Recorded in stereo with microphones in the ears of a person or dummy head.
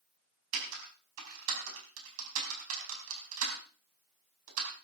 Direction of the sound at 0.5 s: 80° right.